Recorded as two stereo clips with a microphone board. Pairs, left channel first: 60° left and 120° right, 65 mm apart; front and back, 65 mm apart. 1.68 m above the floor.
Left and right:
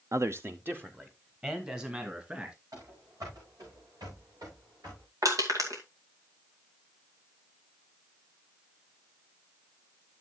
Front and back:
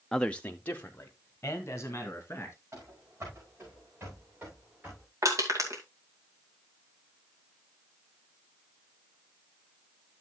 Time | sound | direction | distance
0.1 | a man speaking | 85° right | 0.5 m
2.7 | running footsteps | 135° right | 6.5 m
5.2 | crushing | 150° right | 2.5 m